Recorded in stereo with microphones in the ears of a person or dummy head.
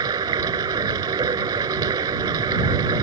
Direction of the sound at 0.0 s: 15° right (ahead or behind).